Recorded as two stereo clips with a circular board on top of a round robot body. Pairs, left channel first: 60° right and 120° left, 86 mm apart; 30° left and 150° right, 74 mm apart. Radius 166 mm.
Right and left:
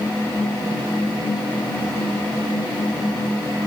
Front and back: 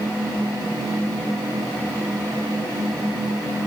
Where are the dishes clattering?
No dishes clattering in this recording.